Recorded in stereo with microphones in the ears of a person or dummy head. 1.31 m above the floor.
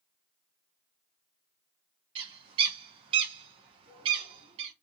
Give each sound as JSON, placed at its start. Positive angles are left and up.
{"t": 2.1, "sound": "a bird", "side_deg": -30, "distance_m": 0.9}